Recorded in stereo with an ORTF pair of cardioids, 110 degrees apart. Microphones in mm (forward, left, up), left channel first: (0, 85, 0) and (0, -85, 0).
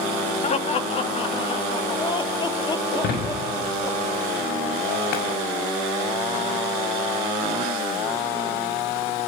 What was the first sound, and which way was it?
Laughter, 40° left.